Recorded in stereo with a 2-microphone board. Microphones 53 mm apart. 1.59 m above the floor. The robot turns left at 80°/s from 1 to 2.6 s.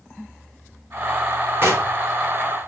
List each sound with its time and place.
1.6 s knocking: 45° right (ahead or behind), 4 m; by 1.9 s 70° right (ahead or behind), 4 m